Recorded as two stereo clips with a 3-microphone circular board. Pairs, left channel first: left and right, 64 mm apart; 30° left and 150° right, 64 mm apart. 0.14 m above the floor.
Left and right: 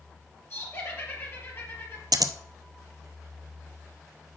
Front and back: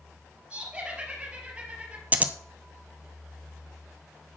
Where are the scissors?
85° right, 0.6 m.